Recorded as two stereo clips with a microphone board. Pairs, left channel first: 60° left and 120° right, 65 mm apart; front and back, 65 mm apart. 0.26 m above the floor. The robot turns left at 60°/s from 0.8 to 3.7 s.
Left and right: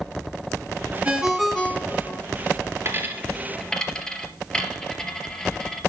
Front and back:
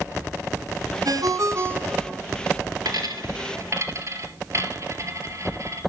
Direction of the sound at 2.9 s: 170° right.